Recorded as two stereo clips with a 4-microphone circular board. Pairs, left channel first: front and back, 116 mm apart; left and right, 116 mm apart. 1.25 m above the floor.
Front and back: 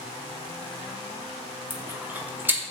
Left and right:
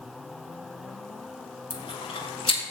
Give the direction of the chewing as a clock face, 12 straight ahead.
8 o'clock.